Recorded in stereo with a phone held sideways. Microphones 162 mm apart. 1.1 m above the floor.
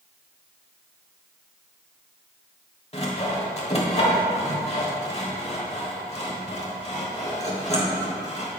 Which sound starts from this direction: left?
Sawing, at 2.9 s.